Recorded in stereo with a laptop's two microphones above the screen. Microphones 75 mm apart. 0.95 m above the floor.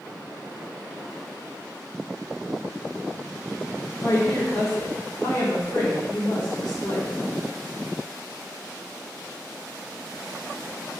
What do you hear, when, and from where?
4.0 s a woman speaking: 55° left (ahead or behind), 1.1 m